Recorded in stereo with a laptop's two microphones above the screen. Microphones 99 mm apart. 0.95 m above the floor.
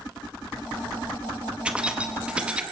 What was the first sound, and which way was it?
Keys jangling, 10° right (ahead or behind).